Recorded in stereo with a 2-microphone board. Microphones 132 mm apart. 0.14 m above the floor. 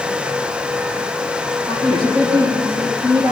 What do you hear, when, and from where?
1.7 s a woman speaking: 40° right (ahead or behind), 7 m; by 3.3 s 45° right (ahead or behind), 8.5 m